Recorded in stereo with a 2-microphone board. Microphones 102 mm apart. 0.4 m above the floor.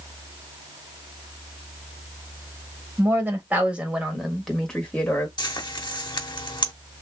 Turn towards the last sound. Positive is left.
turn(degrees=50)  # may be behind; listen again after turning